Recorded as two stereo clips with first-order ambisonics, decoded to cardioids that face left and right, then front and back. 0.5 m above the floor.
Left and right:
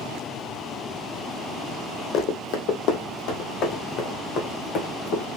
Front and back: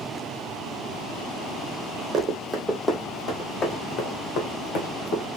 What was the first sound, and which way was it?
Running footsteps, 120° left.